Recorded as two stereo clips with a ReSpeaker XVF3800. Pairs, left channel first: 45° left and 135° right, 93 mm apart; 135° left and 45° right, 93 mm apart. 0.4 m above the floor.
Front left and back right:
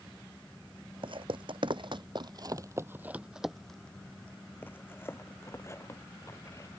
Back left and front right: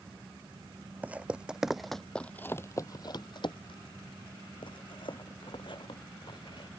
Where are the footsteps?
120° right; by 6.7 s 100° left.